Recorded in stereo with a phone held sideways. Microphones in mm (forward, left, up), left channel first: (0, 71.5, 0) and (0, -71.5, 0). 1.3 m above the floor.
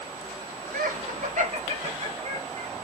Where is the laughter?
80° right, 0.5 m; by 2.7 s 45° right (ahead or behind), 1.8 m.